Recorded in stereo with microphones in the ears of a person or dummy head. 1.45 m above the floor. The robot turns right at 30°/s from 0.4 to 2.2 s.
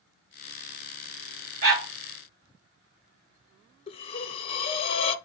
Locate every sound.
1.6 s a dog barking: 55° right (ahead or behind), 1.8 m; by 1.9 s 60° right (ahead or behind), 1.8 m
3.9 s breathing: 35° left (ahead or behind), 0.5 m